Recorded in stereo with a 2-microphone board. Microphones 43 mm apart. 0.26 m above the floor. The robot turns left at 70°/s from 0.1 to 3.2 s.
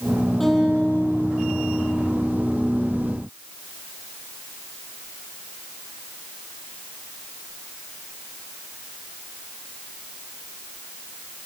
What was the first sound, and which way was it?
A guitar, straight behind.